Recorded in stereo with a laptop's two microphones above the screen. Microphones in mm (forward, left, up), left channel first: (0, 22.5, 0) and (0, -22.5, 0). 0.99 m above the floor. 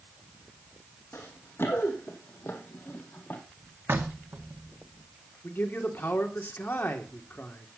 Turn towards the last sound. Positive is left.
turn(degrees=45)  # may be behind; listen again after turning